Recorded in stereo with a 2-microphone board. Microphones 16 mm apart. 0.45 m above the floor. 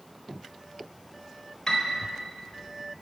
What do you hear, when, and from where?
1.7 s a piano: 50° left (ahead or behind), 1.0 m